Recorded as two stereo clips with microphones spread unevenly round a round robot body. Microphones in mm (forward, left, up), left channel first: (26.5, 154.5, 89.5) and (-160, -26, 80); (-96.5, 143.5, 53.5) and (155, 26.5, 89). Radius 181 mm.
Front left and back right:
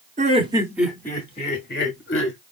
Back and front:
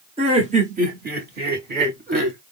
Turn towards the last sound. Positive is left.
turn(degrees=35)